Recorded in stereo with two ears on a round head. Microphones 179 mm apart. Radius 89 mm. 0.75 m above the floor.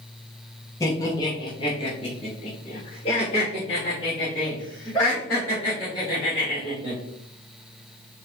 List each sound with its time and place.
0.8 s laughter: 15° left (ahead or behind), 1.1 m; by 7.0 s 25° left (ahead or behind), 3 m